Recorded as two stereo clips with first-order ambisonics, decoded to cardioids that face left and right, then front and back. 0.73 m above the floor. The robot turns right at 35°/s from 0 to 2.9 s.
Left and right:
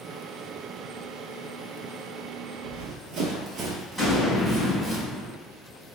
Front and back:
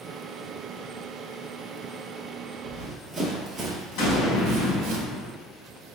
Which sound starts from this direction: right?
Running footsteps, at 2.6 s.